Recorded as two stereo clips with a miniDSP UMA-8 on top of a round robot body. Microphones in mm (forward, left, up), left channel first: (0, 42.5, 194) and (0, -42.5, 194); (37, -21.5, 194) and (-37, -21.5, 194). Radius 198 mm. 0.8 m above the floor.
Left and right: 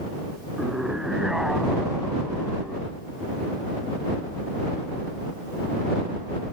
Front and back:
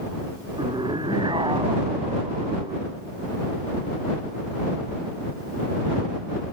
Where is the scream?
175° right.